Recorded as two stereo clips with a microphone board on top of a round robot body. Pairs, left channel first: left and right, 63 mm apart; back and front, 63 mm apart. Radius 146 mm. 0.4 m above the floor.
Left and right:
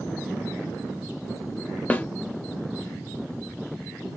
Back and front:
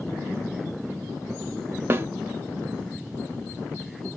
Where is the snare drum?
35° left, 0.8 m.